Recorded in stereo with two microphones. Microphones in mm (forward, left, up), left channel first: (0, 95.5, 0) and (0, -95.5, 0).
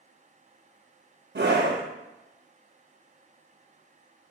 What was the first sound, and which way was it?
A scream, 65° right (ahead or behind).